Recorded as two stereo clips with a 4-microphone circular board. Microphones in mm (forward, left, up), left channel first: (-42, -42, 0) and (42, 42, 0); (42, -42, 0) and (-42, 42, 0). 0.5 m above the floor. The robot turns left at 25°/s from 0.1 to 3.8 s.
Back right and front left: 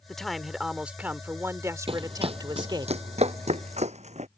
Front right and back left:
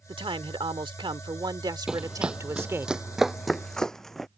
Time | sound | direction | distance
0.1 | a man speaking | 140° left | ?
1.9 | running footsteps | 50° left | ?